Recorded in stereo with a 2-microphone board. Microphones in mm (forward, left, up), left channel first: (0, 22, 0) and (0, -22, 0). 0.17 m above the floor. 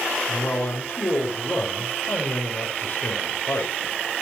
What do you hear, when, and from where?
0.3 s a man speaking: 60° left (ahead or behind), 5 m